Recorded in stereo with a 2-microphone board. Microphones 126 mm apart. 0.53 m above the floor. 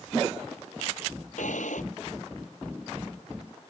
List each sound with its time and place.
1.4 s a drawer: 85° left